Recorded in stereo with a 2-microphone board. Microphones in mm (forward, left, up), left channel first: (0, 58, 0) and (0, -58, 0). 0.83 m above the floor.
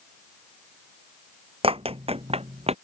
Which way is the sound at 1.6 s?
55° right (ahead or behind).